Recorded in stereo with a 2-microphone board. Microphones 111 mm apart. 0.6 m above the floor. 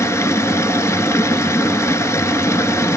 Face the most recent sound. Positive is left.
turn(degrees=25)  # may be behind; listen again after turning